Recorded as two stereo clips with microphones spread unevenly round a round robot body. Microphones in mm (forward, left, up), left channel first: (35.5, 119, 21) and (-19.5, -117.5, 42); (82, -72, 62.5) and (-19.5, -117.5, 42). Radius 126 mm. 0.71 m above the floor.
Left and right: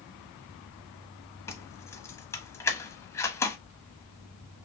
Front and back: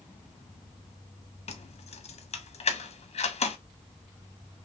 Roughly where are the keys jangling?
Ahead.